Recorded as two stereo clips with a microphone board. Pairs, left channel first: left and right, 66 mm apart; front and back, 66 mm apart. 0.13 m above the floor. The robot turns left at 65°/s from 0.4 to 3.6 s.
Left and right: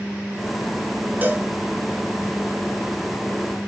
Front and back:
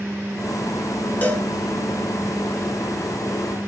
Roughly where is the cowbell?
Ahead right.